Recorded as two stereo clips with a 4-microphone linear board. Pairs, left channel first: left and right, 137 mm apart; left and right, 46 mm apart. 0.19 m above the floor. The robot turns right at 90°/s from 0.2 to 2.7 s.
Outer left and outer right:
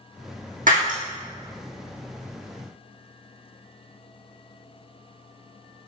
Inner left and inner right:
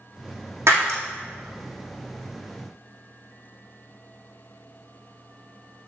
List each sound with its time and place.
0.7 s breaking glass: 80° right, 3 m; by 1.0 s 70° right (ahead or behind), 3 m